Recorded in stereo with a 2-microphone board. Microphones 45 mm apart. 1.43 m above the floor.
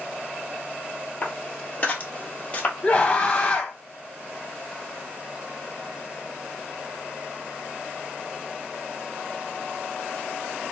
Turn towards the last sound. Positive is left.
turn(degrees=30)  # may be behind; listen again after turning